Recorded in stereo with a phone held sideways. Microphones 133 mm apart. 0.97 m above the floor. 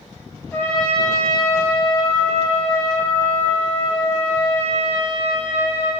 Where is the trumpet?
15° left (ahead or behind), 3 m.